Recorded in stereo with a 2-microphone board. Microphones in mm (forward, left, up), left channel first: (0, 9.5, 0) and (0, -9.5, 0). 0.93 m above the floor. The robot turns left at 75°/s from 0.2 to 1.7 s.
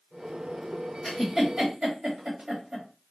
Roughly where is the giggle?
Centre.